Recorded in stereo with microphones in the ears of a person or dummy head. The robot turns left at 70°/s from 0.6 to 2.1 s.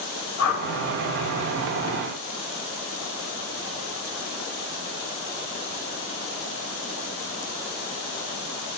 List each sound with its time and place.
0.4 s a whoosh: 65° left (ahead or behind), 7.5 m; by 0.6 s 60° left (ahead or behind), 7.5 m